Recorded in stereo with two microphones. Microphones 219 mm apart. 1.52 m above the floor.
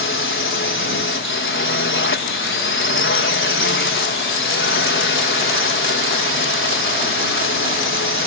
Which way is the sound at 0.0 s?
65° left (ahead or behind).